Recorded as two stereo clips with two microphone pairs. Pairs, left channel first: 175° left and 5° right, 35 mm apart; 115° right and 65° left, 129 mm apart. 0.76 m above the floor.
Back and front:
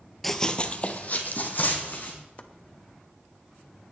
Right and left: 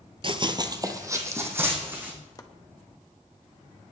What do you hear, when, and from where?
0.2 s running footsteps: 90° left, 0.9 m; by 2.1 s 140° left, 3.5 m
2.4 s chopping: 160° right, 1.0 m